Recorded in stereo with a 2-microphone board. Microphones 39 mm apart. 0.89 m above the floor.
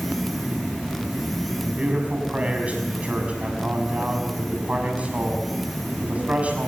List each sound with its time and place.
1.6 s a man speaking: 35° right (ahead or behind), 6 m